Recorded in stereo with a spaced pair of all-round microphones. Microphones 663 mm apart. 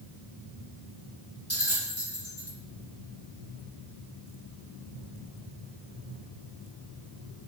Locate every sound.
1.5 s a bell: 20° left (ahead or behind), 3 m